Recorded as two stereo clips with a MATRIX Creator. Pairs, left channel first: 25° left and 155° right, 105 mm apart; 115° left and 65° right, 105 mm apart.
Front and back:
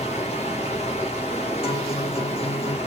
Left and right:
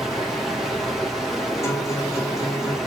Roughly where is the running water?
Ahead.